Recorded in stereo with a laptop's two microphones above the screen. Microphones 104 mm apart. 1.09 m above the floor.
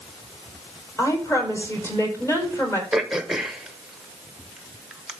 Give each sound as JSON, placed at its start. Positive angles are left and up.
{"t": 1.0, "sound": "a woman speaking", "side_deg": 25, "distance_m": 4.5}
{"t": 2.9, "sound": "throat clearing", "side_deg": -5, "distance_m": 1.0}